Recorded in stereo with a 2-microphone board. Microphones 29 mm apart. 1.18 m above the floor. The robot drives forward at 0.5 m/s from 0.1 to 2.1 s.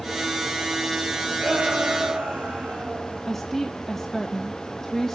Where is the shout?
70° right (ahead or behind), 7.5 m; by 3.2 s 75° right (ahead or behind), 7.5 m.